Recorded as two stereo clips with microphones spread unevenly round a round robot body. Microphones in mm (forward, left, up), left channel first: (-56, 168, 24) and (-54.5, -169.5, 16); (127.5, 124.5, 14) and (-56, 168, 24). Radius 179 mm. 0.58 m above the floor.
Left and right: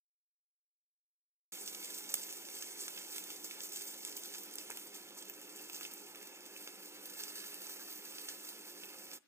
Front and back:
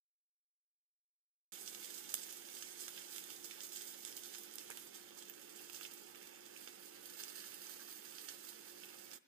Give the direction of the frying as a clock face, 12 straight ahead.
6 o'clock.